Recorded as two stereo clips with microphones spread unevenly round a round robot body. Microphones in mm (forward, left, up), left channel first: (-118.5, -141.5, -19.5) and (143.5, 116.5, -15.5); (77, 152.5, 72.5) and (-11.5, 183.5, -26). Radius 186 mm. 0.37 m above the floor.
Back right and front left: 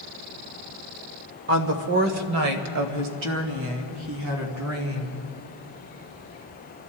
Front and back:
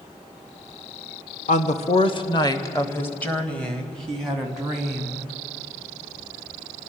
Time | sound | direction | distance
1.5 | a woman speaking | 30° left | 1.0 m